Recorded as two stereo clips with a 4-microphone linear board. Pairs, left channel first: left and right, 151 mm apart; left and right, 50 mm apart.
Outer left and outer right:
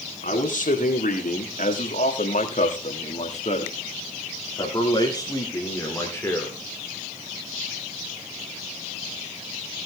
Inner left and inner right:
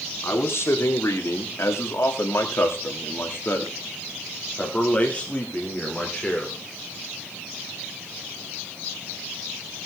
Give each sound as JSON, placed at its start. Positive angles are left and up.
{"t": 0.2, "sound": "a man speaking", "side_deg": 65, "distance_m": 3.0}